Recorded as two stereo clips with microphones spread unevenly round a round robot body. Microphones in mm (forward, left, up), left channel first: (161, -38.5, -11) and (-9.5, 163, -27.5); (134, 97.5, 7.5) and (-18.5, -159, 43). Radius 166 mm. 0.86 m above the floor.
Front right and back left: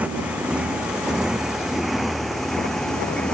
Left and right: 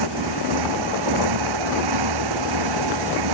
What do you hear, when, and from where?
0.0 s a motorcycle: 145° right; by 3.3 s 135° right